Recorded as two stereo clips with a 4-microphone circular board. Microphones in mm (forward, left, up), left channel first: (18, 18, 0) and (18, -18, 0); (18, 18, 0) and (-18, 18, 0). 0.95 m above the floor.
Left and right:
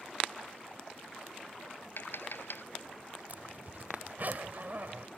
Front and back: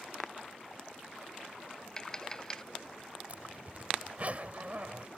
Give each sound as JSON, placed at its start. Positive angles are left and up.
{"t": 2.0, "sound": "tapping", "azimuth_deg": 75}
{"t": 3.3, "sound": "a zipper", "azimuth_deg": -130}